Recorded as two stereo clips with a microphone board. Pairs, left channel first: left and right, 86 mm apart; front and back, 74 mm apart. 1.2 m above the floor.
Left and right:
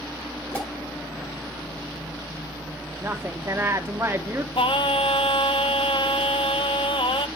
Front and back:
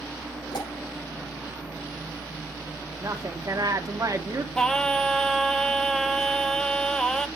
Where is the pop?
15° left, 5.5 m.